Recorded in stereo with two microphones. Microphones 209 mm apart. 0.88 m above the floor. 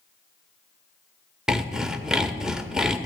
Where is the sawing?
5° right (ahead or behind), 0.9 m.